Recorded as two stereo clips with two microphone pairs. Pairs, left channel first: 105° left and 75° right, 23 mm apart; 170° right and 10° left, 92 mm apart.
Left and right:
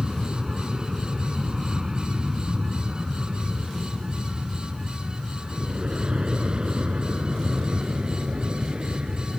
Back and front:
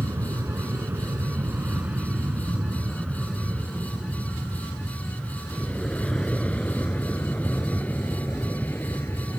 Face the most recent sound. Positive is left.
turn(degrees=-110)